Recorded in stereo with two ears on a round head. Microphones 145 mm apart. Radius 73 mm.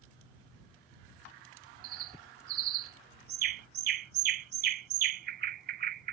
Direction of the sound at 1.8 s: 65° right (ahead or behind).